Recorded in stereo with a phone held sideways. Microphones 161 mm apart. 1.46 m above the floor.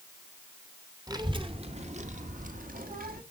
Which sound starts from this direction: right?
A child speaking, at 1.1 s.